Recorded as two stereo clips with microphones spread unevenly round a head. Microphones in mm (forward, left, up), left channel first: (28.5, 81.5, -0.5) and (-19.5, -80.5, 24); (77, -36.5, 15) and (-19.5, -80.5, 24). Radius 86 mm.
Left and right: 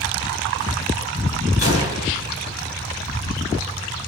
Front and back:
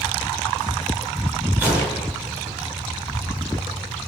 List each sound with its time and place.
1.6 s a gunshot: 125° left, 6 m